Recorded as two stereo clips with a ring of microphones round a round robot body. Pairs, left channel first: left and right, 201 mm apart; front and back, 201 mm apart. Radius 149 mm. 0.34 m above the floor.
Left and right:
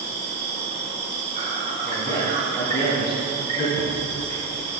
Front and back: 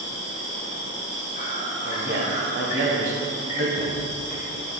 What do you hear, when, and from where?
0.0 s an insect: 45° right, 2.5 m
1.9 s a man speaking: 165° left, 2 m
3.8 s a thud: 65° right, 2.0 m